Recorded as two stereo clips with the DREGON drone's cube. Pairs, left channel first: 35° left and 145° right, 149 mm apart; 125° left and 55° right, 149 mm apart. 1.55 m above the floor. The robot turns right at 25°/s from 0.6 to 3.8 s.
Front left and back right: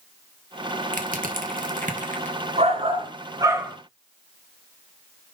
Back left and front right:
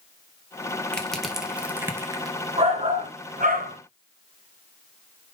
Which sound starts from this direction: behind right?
Crushing, at 0.9 s.